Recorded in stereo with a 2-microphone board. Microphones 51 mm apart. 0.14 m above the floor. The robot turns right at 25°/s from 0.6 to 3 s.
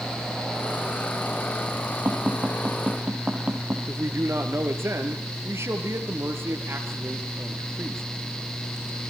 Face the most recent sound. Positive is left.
turn(degrees=-60)  # may be behind; listen again after turning